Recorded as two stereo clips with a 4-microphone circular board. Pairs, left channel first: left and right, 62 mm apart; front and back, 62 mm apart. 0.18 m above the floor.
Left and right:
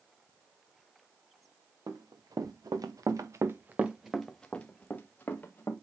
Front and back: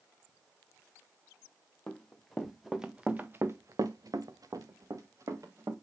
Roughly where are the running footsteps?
Right.